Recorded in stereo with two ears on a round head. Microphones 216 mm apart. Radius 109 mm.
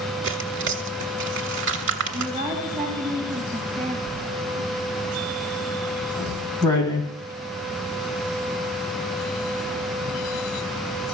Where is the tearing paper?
50° right (ahead or behind), 1.5 m.